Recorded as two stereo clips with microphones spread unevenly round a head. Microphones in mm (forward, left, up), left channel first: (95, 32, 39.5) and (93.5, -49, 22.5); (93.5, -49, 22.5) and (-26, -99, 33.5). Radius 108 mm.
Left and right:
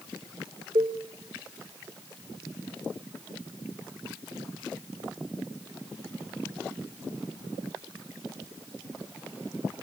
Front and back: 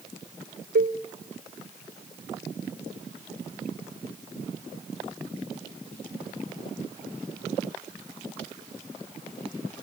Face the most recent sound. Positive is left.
turn(degrees=-150)